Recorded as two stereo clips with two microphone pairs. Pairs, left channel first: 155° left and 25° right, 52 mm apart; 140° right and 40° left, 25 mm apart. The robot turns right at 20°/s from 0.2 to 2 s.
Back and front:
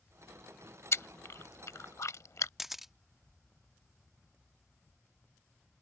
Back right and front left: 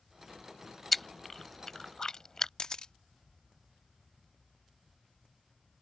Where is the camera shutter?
110° right.